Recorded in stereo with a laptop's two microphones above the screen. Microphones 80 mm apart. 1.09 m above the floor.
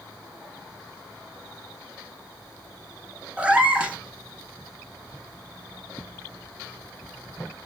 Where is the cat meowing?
15° right (ahead or behind), 1.0 m.